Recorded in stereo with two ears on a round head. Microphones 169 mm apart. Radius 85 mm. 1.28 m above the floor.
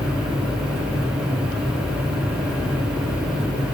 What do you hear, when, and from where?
Only background noise.